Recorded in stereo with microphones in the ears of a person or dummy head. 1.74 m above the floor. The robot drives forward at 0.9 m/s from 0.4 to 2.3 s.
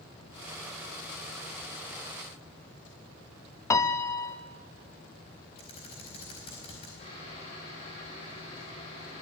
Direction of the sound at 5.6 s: 30° left (ahead or behind).